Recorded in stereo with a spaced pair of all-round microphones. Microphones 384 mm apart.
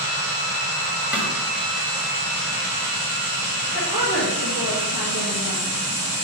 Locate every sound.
1.1 s a snare drum: 5° right (ahead or behind), 1.7 m
3.7 s a woman speaking: 80° left, 1.7 m